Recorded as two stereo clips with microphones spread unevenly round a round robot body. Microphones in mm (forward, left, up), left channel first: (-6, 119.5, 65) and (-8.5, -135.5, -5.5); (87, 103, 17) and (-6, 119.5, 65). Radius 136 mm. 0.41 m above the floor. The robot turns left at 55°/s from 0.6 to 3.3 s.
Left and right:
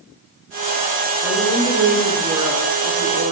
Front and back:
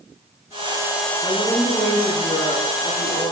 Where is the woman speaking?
35° left, 5.5 m; by 3.3 s 75° right, 5.5 m.